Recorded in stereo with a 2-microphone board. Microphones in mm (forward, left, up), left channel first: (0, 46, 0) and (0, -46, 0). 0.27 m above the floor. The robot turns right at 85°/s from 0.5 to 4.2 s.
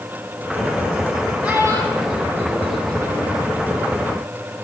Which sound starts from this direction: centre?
A child speaking, at 1.4 s.